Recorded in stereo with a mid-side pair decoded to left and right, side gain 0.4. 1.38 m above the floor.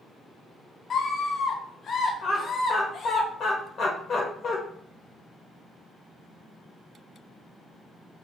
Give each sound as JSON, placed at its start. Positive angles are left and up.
{"t": 0.9, "sound": "a scream", "azimuth_deg": 55, "distance_m": 0.8}
{"t": 2.2, "sound": "laughter", "azimuth_deg": 60, "distance_m": 1.0}